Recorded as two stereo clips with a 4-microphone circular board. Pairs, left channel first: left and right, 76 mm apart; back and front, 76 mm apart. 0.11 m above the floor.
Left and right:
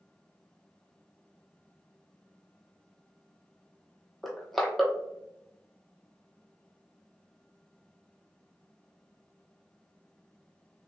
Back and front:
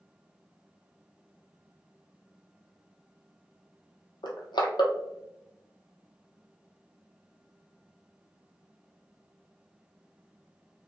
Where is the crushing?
Straight behind, 0.8 m.